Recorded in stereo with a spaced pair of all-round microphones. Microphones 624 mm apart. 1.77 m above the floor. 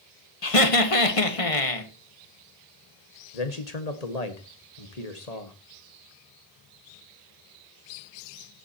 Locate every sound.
0.4 s laughter: 60° left (ahead or behind), 1.8 m
3.3 s a man speaking: 85° left, 1.9 m